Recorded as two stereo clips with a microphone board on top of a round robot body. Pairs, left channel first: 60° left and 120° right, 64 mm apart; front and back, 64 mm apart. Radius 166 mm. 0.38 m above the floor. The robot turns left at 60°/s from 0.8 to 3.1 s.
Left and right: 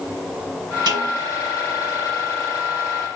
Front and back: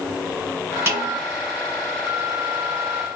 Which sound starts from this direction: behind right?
A snare drum, at 0.9 s.